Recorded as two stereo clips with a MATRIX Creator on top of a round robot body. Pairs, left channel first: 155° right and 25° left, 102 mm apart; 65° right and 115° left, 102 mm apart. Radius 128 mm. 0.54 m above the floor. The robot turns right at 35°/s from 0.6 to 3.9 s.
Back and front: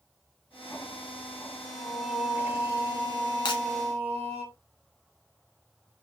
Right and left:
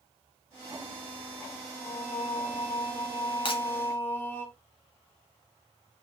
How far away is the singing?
About 2.5 m.